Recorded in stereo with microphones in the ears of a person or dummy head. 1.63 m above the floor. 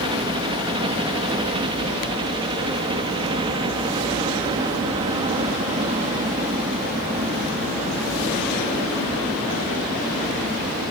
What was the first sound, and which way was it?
A helicopter, 25° right (ahead or behind).